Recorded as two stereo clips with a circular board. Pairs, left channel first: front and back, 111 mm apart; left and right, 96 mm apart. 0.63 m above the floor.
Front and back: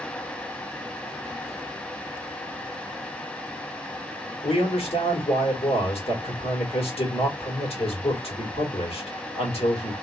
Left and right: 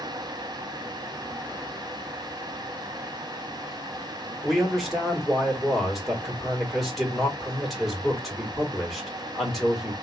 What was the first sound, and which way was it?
A man speaking, straight ahead.